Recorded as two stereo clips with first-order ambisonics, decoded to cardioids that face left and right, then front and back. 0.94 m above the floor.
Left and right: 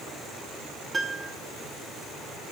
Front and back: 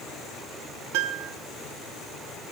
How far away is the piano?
About 0.8 m.